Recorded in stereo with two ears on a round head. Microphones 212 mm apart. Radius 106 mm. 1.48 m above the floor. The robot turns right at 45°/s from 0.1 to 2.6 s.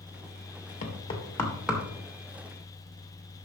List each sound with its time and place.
0.8 s knocking: 35° left (ahead or behind), 1.7 m; by 1.8 s 10° right (ahead or behind), 1.7 m